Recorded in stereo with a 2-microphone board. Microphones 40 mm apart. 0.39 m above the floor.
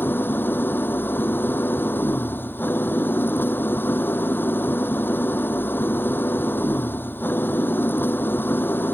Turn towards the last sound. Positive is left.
turn(degrees=60)  # may be behind; listen again after turning